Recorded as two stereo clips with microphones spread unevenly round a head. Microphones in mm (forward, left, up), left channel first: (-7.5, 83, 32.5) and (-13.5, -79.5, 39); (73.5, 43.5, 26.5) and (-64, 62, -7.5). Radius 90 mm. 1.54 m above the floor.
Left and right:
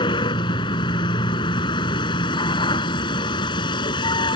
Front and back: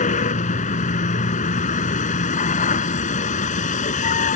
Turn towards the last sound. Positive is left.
turn(degrees=20)